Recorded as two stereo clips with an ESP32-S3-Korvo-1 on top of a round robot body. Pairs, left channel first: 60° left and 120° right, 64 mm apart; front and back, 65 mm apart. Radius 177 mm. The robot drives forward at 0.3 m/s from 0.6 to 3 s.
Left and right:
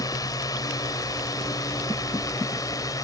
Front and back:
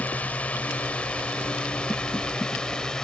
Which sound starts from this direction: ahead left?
A drone, at 0.0 s.